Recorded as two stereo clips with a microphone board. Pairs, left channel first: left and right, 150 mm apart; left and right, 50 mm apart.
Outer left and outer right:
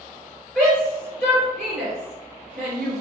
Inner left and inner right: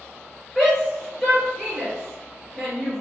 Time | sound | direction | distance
0.6 | a shout | 5° left (ahead or behind) | 1.7 m